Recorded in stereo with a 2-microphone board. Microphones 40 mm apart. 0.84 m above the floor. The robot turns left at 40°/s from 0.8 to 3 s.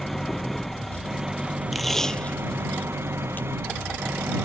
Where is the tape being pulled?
Centre (ahead or behind); by 3.5 s 50° left (ahead or behind).